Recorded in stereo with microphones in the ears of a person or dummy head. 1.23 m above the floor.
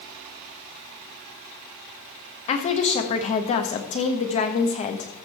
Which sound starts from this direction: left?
A woman speaking, at 2.5 s.